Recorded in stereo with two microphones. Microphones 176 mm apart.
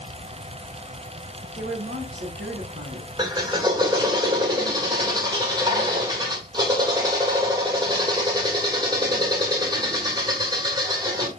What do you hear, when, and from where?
1.6 s a woman speaking: 70° right (ahead or behind), 3 m
3.2 s a drill: 25° right (ahead or behind), 1.8 m